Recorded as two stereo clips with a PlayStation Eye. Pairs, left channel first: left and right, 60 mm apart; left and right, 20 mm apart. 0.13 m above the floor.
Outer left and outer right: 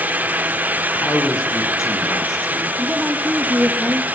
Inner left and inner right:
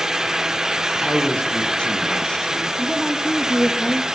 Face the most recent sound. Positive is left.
turn(degrees=-10)  # may be behind; listen again after turning